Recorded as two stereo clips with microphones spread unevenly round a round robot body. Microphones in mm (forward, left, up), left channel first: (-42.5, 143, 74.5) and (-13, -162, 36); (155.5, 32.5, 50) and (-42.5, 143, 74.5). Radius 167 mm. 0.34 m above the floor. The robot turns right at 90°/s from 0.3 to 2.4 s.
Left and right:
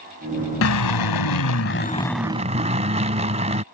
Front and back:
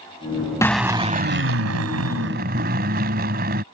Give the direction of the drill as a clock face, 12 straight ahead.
10 o'clock.